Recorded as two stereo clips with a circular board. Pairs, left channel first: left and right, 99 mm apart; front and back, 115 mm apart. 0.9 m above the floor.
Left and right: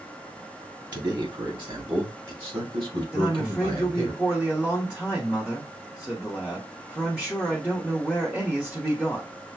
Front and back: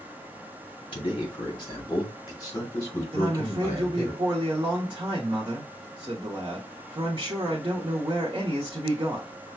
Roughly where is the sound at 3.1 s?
Behind.